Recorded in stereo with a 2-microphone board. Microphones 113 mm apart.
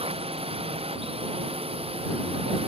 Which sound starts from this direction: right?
A drone, at 0.0 s.